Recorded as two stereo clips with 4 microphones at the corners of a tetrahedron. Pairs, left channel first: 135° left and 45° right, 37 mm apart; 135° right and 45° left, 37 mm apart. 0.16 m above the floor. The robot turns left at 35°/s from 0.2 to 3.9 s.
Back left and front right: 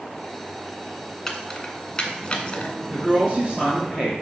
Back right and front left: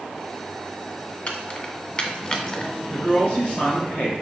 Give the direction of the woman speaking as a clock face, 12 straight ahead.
3 o'clock.